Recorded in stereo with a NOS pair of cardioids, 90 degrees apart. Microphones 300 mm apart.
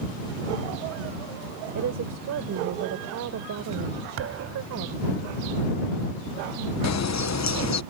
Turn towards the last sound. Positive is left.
turn(degrees=60)